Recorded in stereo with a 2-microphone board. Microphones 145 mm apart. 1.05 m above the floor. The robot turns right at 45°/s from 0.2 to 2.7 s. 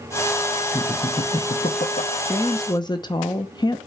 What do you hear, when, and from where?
0.7 s laughter: 25° left (ahead or behind), 1.1 m; by 2.1 s 80° left, 1.1 m
2.2 s a woman speaking: 20° left (ahead or behind), 0.8 m; by 3.8 s 30° left (ahead or behind), 0.8 m